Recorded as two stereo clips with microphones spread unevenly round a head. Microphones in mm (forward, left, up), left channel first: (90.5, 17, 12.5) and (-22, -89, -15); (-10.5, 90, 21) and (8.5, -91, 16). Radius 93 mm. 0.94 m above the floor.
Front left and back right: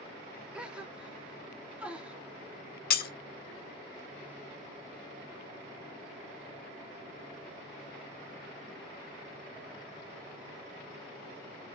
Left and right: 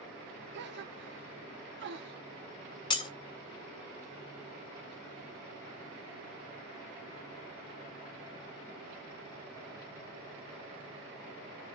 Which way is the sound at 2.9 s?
30° left.